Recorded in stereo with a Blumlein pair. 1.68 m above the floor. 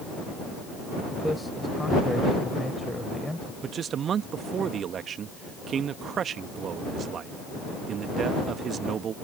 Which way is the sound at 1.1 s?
5° left.